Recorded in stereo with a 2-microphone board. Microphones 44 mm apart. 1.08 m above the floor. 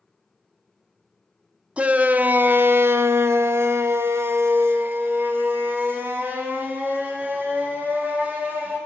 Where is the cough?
I don't hear a cough.